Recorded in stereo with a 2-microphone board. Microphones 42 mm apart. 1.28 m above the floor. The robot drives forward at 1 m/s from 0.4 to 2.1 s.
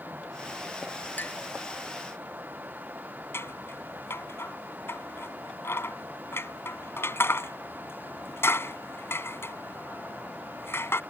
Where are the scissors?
75° left (ahead or behind).